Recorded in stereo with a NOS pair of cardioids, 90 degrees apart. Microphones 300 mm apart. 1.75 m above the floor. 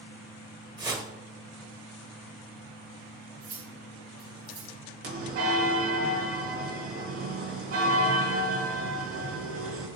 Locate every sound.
0.8 s a whoosh: 15° right, 1.7 m
3.4 s cutlery clinking: 50° right, 3 m
5.0 s a bell: 50° right, 2 m